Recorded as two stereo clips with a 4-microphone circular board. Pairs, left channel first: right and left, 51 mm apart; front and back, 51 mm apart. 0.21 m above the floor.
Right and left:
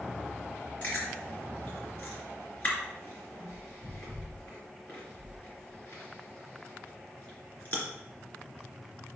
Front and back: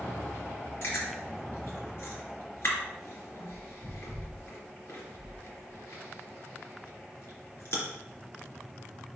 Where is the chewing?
35° right, 3 m.